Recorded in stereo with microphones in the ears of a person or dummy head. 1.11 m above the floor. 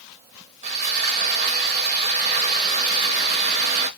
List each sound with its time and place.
0.6 s sawing: 40° right (ahead or behind), 0.8 m